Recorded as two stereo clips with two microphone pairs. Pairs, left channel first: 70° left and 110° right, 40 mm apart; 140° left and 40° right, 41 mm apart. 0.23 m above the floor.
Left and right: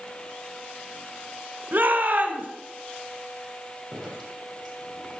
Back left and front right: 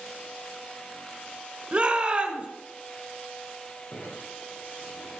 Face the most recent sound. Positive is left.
turn(degrees=155)